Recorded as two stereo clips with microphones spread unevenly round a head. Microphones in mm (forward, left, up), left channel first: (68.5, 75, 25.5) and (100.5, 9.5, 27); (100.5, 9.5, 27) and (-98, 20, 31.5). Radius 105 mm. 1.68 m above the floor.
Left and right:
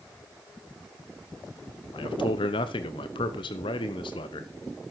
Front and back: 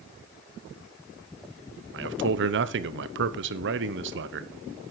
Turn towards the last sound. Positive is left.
turn(degrees=145)